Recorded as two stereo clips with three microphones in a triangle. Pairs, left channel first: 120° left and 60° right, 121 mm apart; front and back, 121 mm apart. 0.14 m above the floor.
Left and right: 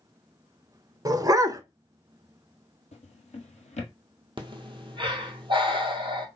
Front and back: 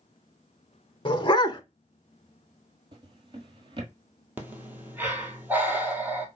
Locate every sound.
1.1 s a dog barking: 15° right, 0.5 m
2.9 s a drawer: 135° left, 1.2 m
4.4 s breathing: 105° right, 1.1 m